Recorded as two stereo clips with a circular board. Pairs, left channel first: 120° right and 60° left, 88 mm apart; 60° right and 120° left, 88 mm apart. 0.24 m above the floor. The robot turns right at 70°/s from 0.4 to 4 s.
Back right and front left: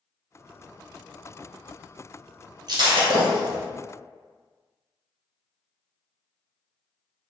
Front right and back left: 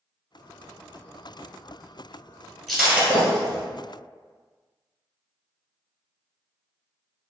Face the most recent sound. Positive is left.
turn(degrees=115)